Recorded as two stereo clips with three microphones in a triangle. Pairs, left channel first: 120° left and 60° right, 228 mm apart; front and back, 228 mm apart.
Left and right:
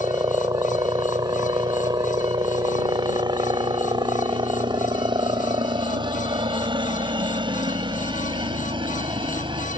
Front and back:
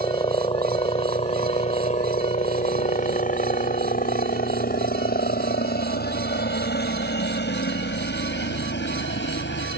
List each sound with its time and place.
0.0 s a helicopter: 15° right; by 9.8 s 5° left